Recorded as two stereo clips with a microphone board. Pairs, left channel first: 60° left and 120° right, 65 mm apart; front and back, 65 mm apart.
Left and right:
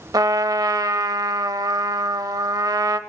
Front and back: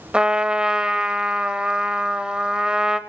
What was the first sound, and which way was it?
A trumpet, 105° right.